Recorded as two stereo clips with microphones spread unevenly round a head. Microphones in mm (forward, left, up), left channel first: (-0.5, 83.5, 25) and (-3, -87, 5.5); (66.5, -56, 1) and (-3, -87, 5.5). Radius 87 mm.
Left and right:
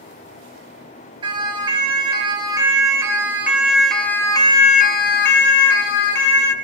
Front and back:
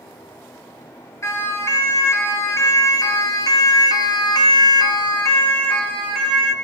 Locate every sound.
1.2 s a siren: 25° right, 4.5 m; by 6.5 s 120° left, 2.5 m